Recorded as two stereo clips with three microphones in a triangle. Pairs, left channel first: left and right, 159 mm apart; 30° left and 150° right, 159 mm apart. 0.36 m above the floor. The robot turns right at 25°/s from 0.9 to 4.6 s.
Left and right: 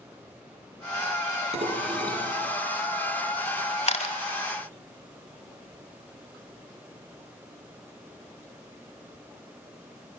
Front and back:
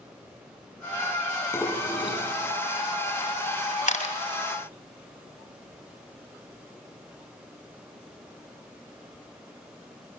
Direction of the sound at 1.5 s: 45° right.